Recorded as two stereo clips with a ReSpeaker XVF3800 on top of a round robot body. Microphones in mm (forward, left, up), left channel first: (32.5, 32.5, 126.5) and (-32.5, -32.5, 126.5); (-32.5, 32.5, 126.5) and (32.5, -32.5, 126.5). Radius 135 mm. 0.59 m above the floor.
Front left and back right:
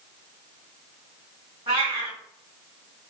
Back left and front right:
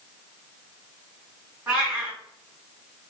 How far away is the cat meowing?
About 1.6 m.